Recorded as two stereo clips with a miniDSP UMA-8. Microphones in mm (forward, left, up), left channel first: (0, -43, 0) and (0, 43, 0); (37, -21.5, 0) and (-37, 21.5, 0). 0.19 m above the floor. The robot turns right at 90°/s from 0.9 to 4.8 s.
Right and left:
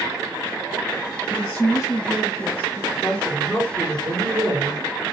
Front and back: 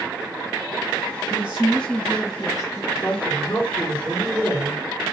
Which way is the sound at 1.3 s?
170° right.